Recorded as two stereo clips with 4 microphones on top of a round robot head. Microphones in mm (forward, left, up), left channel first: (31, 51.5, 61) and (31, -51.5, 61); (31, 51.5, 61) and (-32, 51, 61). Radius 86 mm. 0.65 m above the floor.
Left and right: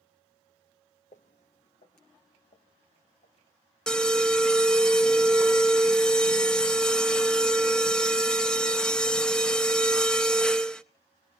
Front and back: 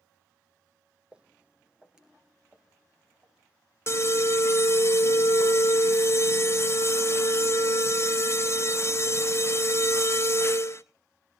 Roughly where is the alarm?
Ahead.